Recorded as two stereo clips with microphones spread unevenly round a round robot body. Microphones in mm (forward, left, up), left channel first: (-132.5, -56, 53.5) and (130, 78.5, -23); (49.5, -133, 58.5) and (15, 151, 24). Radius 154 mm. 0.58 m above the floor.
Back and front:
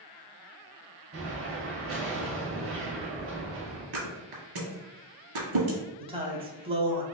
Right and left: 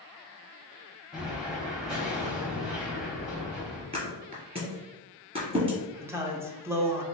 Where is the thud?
25° left, 1.6 m.